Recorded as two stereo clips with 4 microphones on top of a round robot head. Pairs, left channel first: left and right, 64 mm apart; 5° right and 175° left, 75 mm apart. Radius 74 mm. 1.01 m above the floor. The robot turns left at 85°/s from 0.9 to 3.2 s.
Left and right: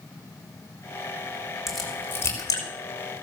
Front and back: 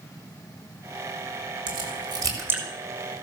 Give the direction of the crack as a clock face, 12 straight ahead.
6 o'clock.